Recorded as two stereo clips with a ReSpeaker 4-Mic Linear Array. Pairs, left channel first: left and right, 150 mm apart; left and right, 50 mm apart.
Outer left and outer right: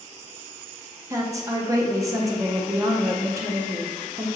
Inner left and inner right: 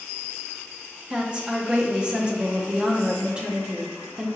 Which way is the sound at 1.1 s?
20° right (ahead or behind).